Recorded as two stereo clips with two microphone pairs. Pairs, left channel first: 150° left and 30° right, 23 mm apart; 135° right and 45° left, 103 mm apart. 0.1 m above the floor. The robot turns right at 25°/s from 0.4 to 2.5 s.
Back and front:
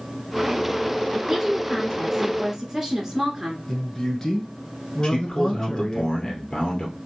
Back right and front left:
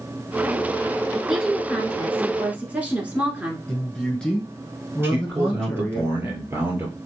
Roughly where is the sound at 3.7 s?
Behind.